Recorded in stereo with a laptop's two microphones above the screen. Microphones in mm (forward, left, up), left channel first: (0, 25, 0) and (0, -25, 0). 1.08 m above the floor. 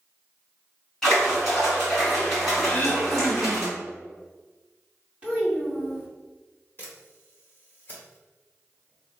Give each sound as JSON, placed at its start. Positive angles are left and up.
{"t": 1.0, "sound": "a splash", "side_deg": 10, "distance_m": 2.0}
{"t": 2.7, "sound": "throat clearing", "side_deg": 30, "distance_m": 1.2}
{"t": 5.2, "sound": "a child speaking", "side_deg": -20, "distance_m": 1.5}
{"t": 6.8, "sound": "a camera shutter", "side_deg": 40, "distance_m": 1.5}